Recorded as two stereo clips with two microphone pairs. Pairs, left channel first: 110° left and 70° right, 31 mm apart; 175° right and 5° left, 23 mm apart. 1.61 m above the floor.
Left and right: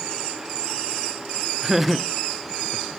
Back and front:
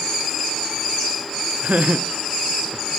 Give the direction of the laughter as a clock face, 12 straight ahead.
12 o'clock.